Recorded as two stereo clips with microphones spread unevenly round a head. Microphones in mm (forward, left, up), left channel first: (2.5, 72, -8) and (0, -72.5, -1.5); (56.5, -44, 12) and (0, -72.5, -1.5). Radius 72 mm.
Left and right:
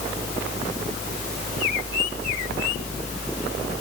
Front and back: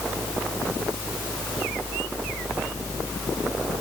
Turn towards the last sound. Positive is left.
No sound to turn to.